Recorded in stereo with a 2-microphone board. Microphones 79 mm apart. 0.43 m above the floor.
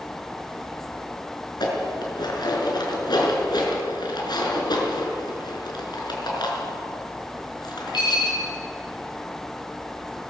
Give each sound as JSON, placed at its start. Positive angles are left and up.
{"t": 1.6, "sound": "dishes clattering", "side_deg": 70, "distance_m": 4.5}